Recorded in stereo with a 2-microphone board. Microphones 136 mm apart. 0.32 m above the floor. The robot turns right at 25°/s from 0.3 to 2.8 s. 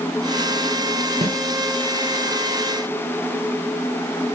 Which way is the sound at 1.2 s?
45° right (ahead or behind).